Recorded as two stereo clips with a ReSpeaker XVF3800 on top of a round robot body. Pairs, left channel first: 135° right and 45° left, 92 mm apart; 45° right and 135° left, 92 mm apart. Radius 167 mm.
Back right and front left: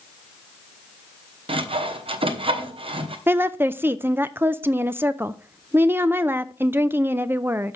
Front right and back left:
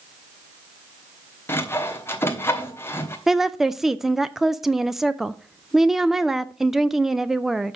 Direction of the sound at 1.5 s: 20° left.